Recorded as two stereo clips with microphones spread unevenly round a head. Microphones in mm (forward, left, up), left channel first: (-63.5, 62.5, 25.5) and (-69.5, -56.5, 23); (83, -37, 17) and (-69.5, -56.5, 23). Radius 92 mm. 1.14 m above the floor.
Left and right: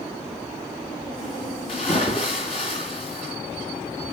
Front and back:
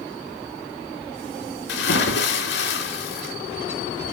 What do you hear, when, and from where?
1.7 s a splash: 25° left, 3 m